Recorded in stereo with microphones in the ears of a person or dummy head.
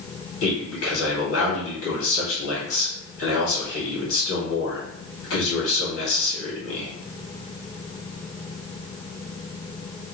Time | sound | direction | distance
0.4 | a man speaking | 70° left (ahead or behind) | 1.9 m